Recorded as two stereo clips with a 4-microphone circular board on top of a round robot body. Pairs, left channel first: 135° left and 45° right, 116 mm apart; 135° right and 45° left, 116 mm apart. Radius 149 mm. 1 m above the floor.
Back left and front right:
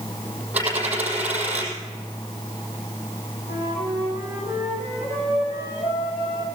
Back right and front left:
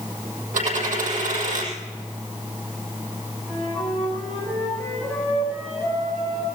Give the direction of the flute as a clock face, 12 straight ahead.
8 o'clock.